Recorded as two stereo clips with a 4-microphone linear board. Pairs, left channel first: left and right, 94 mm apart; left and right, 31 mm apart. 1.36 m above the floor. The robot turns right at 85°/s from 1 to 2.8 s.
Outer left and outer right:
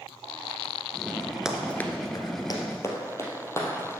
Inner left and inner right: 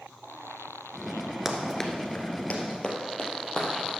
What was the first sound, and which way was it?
Running footsteps, 10° right (ahead or behind).